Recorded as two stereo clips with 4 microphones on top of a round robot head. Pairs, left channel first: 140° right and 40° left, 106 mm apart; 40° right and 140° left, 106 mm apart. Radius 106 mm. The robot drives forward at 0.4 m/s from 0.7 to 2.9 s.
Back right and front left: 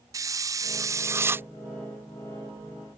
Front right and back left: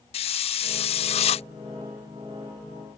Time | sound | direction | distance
0.1 | a hiss | 20° right | ?